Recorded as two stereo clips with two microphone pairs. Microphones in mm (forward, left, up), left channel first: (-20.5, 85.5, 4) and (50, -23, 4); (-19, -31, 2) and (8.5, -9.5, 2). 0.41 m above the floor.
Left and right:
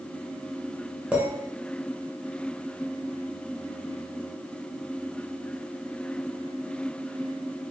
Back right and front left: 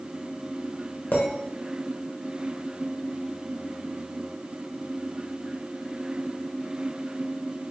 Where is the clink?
135° right, 1.0 m.